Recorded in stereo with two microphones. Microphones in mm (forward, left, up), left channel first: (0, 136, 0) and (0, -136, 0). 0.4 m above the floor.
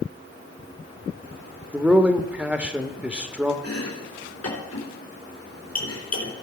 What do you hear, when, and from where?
1.7 s a man speaking: 5° right (ahead or behind), 0.8 m
3.6 s chopping: 70° left (ahead or behind), 3.5 m